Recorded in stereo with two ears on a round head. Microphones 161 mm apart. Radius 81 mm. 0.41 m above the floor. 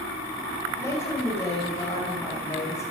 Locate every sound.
0.8 s a woman speaking: 15° left (ahead or behind), 2.5 m